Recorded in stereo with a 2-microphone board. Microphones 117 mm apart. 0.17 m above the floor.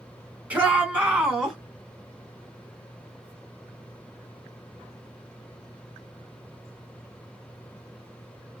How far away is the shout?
About 2.0 m.